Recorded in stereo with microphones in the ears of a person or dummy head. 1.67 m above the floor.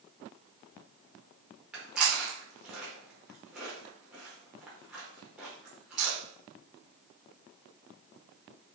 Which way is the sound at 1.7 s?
10° right (ahead or behind).